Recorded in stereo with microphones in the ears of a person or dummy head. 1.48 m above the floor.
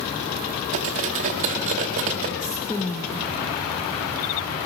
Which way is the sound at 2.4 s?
15° left (ahead or behind).